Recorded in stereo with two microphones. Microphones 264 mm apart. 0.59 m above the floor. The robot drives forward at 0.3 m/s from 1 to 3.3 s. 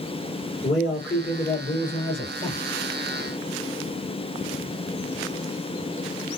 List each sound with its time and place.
0.6 s a man speaking: 45° left (ahead or behind), 2 m; by 2.6 s 40° left (ahead or behind), 2.5 m